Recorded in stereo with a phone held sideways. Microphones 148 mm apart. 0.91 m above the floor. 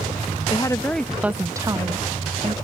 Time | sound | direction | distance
0.5 | a woman speaking | 30° left (ahead or behind) | ?